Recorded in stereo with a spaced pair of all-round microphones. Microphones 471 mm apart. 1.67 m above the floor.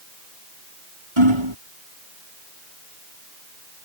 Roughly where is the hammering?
Right.